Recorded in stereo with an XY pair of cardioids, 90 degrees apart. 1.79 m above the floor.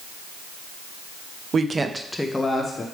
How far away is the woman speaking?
About 0.7 m.